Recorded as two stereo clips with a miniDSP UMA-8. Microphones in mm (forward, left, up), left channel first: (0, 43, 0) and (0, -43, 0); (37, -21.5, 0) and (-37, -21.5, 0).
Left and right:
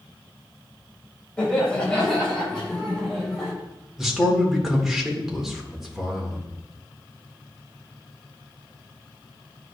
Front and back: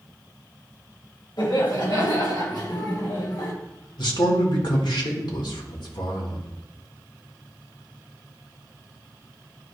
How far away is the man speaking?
About 1.6 m.